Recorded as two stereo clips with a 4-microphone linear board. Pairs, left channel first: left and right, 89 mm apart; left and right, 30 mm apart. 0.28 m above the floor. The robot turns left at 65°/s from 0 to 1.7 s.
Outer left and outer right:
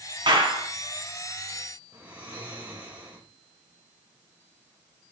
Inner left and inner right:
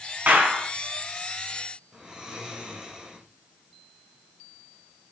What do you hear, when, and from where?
0.3 s a clap: 60° right (ahead or behind), 2.5 m
1.9 s snoring: 15° right (ahead or behind), 5 m